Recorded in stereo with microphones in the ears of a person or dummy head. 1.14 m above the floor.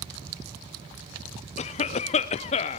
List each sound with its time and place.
1.6 s a cough: 30° left (ahead or behind), 0.6 m